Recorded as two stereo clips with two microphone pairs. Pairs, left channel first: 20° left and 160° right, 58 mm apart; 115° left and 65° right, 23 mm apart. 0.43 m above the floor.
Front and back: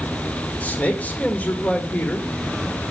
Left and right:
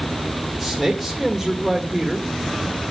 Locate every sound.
0.6 s a man speaking: 20° left, 1.5 m